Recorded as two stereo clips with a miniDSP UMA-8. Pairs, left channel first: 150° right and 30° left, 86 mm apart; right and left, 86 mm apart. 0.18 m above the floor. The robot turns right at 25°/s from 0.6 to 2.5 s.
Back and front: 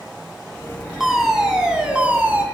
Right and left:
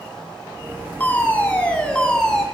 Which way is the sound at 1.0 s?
55° right.